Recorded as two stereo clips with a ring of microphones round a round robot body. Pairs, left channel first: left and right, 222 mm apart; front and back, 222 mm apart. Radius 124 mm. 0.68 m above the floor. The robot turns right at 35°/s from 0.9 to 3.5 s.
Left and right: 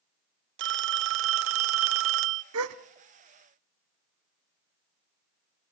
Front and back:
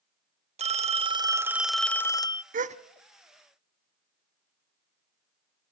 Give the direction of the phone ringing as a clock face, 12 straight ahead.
4 o'clock.